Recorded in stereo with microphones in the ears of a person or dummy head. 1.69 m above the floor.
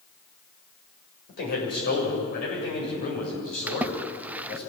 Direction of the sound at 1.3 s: 55° left (ahead or behind).